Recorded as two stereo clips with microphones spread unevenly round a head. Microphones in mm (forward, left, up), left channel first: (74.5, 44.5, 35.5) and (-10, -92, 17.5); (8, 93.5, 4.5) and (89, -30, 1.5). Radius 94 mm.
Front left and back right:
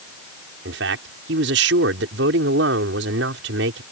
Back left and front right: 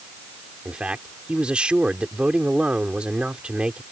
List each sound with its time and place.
0.7 s a man speaking: 140° right